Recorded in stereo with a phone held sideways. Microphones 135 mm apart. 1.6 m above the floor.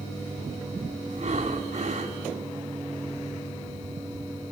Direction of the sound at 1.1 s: 55° right (ahead or behind).